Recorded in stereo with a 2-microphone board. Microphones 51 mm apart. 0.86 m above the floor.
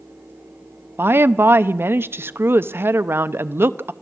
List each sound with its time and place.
1.0 s a woman speaking: 50° right (ahead or behind), 0.6 m